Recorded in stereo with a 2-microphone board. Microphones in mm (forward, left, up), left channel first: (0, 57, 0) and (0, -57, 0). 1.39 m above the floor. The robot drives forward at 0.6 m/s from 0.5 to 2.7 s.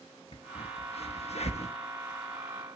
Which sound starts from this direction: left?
A crack, at 0.3 s.